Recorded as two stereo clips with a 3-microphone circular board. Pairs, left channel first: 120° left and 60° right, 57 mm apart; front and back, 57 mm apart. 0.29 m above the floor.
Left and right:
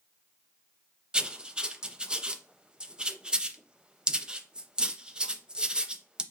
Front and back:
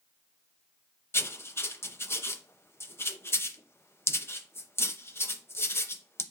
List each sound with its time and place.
1.1 s writing: 10° left, 0.5 m